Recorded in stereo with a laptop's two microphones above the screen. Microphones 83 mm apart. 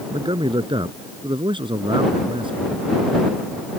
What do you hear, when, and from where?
0.1 s a man speaking: 80° right